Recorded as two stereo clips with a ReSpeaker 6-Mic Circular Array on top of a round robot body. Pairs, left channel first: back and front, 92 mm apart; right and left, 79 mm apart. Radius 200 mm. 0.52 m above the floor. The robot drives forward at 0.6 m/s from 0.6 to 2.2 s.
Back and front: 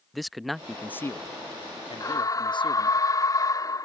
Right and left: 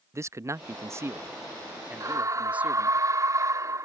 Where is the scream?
130° left; by 3.9 s 135° left.